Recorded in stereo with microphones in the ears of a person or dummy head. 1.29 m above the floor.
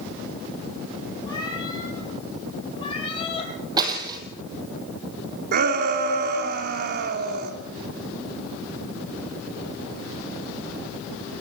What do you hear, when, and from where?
1.3 s a cat meowing: 20° left (ahead or behind), 7 m; by 3.5 s 25° left (ahead or behind), 5.5 m
3.8 s breaking glass: 25° right (ahead or behind), 3 m
5.5 s a shout: 50° right (ahead or behind), 2.5 m